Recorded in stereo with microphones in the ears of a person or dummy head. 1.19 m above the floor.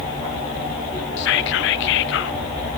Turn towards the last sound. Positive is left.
turn(degrees=75)  # may be behind; listen again after turning